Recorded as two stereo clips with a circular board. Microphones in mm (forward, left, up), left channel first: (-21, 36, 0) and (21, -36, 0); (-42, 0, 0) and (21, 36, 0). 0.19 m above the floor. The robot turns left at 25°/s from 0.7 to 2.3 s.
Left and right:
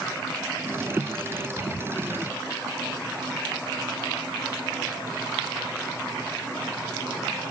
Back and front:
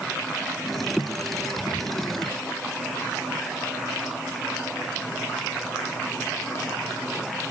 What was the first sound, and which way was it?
Only background noise.